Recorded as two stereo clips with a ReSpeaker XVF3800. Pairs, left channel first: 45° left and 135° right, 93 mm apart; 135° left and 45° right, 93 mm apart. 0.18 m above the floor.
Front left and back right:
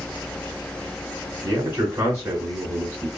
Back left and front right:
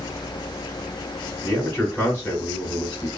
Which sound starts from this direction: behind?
A man speaking, at 1.4 s.